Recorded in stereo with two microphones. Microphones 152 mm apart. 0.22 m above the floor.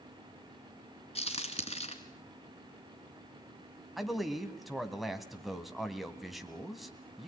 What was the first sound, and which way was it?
A crack, 40° left (ahead or behind).